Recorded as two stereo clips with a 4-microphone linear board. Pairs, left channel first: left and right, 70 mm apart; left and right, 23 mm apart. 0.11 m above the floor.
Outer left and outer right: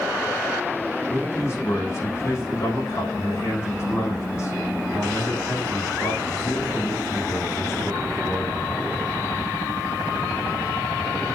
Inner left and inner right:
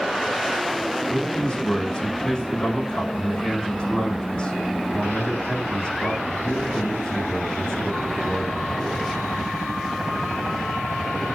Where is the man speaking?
40° left (ahead or behind), 6 m.